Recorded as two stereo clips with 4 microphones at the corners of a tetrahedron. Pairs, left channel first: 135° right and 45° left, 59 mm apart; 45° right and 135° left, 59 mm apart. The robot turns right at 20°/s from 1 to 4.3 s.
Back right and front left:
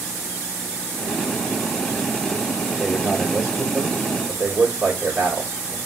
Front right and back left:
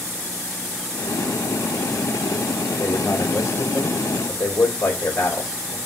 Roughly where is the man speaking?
Ahead right.